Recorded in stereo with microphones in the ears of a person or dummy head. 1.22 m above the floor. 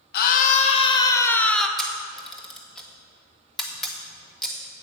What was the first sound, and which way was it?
A scream, 55° left (ahead or behind).